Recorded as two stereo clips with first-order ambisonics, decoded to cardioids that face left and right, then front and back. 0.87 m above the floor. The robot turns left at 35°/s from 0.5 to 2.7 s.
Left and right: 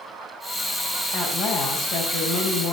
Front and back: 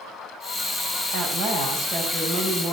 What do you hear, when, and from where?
1.1 s a woman speaking: 145° left, 4.5 m; by 2.7 s 90° left, 4.5 m